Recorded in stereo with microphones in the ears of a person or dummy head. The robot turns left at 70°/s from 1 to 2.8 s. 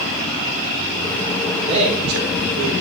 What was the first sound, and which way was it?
A man speaking, 20° right.